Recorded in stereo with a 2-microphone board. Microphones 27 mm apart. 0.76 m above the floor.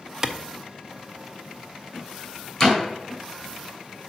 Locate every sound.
0.2 s a clap: 20° right (ahead or behind), 0.5 m
2.6 s a door slam: 15° left (ahead or behind), 2 m